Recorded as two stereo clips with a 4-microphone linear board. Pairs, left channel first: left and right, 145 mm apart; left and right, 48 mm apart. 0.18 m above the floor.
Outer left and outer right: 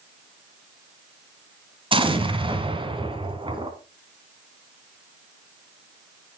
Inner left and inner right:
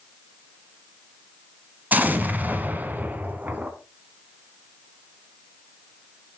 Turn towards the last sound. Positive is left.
turn(degrees=-35)  # may be behind; listen again after turning